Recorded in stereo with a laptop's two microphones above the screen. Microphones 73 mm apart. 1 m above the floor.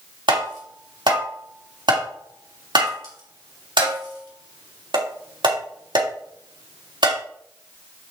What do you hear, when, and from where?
0.3 s tapping: 80° right, 3 m